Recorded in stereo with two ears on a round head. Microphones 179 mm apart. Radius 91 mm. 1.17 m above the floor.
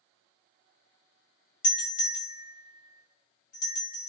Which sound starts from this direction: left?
A doorbell, at 1.6 s.